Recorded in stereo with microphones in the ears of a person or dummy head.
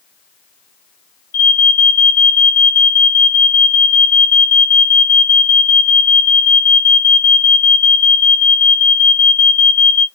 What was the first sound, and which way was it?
An alarm, 45° left (ahead or behind).